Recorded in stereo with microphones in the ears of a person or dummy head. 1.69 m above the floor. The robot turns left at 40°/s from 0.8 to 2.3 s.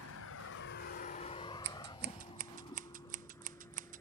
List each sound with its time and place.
0.0 s a vehicle: 80° left; by 4.0 s 10° left (ahead or behind)
1.6 s scissors: 55° right (ahead or behind); by 4.0 s 40° right (ahead or behind)